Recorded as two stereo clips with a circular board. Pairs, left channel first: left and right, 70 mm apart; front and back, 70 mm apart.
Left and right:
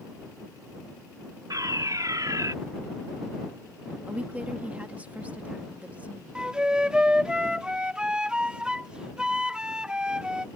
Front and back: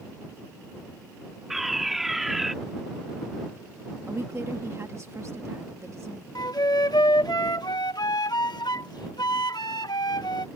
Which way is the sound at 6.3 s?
10° right.